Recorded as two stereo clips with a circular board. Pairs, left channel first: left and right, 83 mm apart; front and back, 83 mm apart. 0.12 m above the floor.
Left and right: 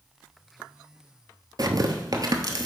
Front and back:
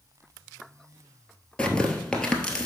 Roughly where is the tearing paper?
Right.